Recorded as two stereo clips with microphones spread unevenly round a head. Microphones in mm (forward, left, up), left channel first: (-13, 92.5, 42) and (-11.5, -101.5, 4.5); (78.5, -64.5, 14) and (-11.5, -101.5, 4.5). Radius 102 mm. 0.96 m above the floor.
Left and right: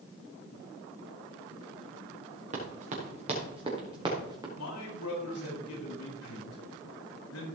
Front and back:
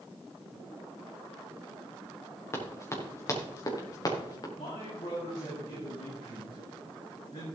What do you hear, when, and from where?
2.5 s running footsteps: 35° right, 5 m; by 4.5 s 15° right, 4 m
4.6 s a man speaking: 80° left, 5 m